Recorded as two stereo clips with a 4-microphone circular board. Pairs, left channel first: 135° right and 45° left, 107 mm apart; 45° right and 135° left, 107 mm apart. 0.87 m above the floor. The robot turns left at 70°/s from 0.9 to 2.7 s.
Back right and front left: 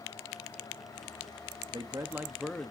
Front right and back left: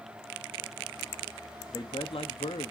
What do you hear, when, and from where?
1.7 s a man speaking: 10° left, 1.0 m; by 2.7 s 60° right, 1.0 m